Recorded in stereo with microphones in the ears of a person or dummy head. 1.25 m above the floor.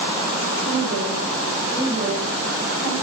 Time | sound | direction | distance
0.7 | a woman speaking | 45° right (ahead or behind) | 6 m